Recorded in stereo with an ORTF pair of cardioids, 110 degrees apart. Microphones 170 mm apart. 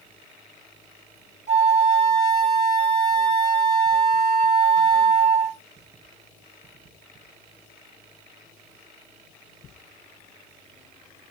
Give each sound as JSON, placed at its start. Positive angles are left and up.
{"t": 1.5, "sound": "a flute", "azimuth_deg": 45, "distance_m": 4.5}